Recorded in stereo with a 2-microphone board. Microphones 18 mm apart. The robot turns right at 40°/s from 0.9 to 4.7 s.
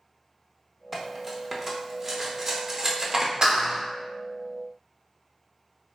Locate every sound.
0.9 s cutlery clinking: centre (ahead or behind), 0.6 m; by 3.3 s 20° right (ahead or behind), 0.6 m
3.4 s a clap: 40° right (ahead or behind), 1.2 m